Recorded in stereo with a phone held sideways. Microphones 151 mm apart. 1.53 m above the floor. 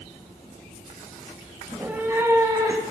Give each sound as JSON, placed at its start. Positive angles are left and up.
{"t": 1.7, "sound": "a cat meowing", "side_deg": -5, "distance_m": 1.0}